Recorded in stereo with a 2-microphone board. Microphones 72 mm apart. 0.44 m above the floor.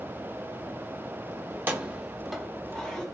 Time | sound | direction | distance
1.5 | keys jangling | 30° right (ahead or behind) | 0.7 m